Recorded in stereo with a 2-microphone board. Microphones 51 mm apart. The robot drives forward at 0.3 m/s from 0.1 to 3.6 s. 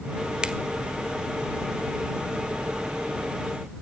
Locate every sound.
0.4 s a finger snap: 20° right (ahead or behind), 1.5 m